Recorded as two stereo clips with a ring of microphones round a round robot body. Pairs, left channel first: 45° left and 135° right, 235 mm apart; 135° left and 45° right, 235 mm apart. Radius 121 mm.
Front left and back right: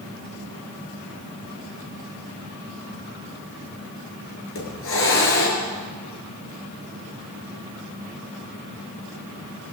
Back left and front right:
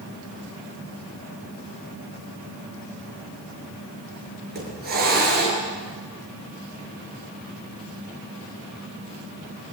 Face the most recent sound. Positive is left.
turn(degrees=5)